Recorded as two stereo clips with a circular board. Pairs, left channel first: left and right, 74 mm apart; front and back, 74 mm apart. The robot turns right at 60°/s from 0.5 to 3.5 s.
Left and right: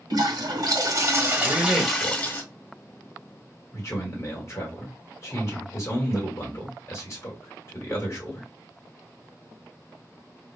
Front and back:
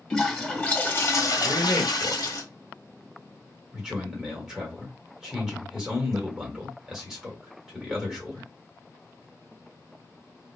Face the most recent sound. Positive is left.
turn(degrees=100)